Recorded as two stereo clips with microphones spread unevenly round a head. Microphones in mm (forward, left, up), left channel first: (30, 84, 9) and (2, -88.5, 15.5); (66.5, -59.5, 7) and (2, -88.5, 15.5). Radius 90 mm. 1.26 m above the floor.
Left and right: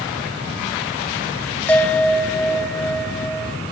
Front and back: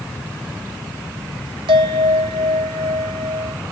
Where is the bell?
165° left, 1.0 m.